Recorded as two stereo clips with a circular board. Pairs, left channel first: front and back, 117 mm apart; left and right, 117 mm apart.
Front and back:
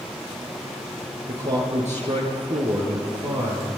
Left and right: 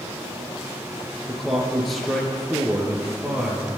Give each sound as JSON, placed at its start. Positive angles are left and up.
{"t": 1.3, "sound": "a man speaking", "azimuth_deg": 180, "distance_m": 7.5}